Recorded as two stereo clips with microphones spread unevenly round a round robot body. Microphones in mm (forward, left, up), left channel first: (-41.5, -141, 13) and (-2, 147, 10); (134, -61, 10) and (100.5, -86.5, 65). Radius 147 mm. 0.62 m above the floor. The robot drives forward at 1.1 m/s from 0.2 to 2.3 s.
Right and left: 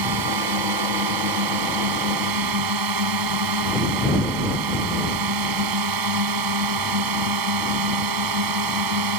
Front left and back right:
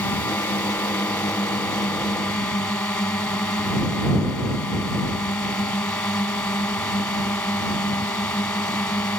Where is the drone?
80° left; by 9.2 s 90° left.